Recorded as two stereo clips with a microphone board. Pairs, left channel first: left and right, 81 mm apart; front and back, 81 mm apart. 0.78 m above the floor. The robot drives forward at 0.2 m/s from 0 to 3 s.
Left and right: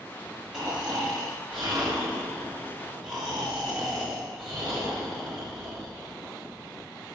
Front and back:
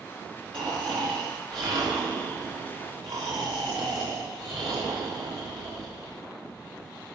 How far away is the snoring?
About 5.5 m.